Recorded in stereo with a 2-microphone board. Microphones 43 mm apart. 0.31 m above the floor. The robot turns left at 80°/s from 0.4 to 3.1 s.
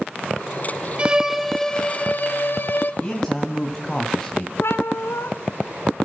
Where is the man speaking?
15° left (ahead or behind), 2 m; by 4.5 s 10° left (ahead or behind), 2 m.